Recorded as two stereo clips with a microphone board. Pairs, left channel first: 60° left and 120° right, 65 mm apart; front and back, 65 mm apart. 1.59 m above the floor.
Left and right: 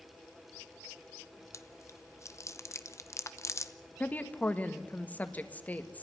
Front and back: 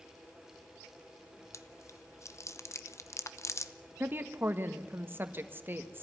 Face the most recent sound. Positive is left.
turn(degrees=125)